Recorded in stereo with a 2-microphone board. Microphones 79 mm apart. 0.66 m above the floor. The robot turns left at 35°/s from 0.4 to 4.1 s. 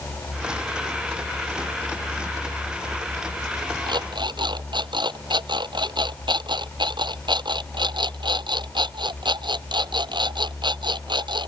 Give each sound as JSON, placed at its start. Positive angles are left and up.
{"t": 3.9, "sound": "an alarm clock", "side_deg": -85}